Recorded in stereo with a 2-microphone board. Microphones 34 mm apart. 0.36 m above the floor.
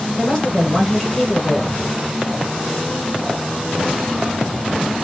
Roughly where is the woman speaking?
Centre.